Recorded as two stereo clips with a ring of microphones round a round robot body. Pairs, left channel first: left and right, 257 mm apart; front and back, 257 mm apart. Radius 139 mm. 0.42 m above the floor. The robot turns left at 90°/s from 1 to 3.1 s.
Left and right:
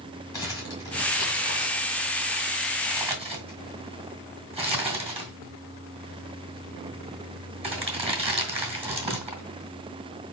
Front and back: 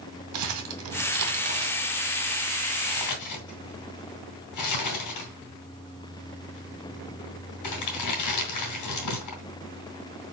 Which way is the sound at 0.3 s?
165° left.